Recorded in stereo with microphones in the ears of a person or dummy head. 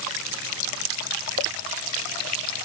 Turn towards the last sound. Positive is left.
No sound to turn to.